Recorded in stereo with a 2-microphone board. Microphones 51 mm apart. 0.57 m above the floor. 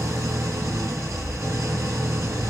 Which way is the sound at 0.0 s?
70° right (ahead or behind).